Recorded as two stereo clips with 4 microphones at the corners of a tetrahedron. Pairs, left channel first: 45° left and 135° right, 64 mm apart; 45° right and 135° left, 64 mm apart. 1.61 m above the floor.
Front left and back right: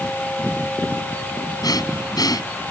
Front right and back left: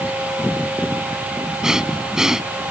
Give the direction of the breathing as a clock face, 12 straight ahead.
10 o'clock.